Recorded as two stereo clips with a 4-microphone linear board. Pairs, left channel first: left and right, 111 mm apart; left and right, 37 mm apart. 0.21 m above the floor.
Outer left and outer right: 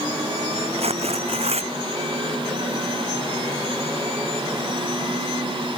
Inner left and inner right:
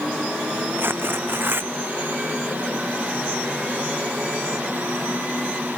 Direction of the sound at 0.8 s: 65° right (ahead or behind).